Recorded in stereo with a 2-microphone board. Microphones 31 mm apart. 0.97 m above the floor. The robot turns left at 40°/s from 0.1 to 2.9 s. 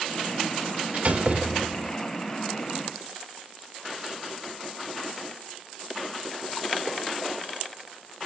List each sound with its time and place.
0.9 s a door slam: 110° right, 1.8 m; by 2.0 s 150° right, 1.8 m